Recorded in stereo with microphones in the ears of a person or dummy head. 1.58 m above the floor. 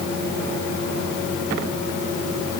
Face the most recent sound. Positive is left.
No sound to turn to.